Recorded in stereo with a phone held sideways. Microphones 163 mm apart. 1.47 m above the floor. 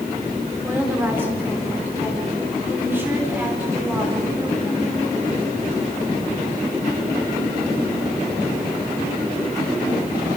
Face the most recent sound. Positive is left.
turn(degrees=-15)  # may be behind; listen again after turning